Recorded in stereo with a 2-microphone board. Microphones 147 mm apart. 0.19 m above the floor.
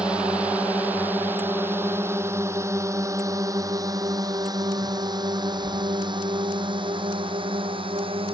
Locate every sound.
0.0 s a drone: 5° right (ahead or behind); by 8.4 s 35° right (ahead or behind)